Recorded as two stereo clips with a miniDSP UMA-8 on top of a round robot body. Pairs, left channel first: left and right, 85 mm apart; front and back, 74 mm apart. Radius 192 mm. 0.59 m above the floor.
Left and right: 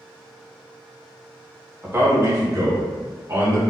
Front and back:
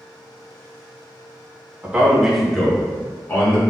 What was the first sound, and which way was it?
A man speaking, 130° right.